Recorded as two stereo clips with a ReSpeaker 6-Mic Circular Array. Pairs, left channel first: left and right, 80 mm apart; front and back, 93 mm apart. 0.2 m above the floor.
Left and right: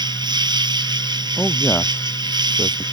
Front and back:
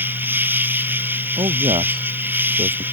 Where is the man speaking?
160° left.